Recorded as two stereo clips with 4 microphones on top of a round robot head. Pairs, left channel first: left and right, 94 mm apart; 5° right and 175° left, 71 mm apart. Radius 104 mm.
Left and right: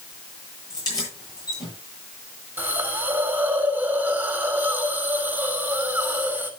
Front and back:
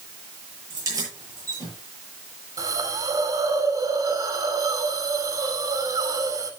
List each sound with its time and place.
0.7 s keys jangling: 135° left, 9.5 m
2.6 s a hiss: 160° right, 2.5 m